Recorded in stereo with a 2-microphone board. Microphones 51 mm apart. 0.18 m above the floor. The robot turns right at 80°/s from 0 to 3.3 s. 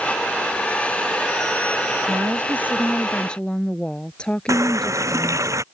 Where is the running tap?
85° right.